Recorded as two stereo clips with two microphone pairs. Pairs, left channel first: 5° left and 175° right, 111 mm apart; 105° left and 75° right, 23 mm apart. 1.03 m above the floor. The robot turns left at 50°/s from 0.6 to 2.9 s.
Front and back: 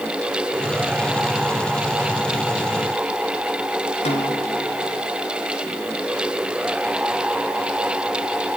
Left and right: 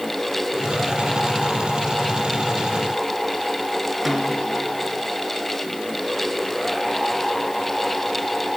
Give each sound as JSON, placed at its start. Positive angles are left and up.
{"t": 4.0, "sound": "a snare drum", "azimuth_deg": 10, "distance_m": 4.0}